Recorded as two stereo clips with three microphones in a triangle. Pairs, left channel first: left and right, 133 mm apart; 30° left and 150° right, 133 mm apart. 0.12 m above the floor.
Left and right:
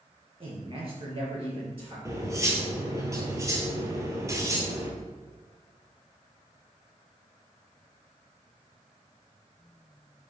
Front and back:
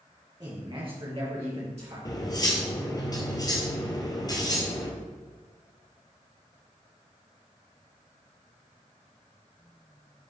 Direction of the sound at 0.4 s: 110° right.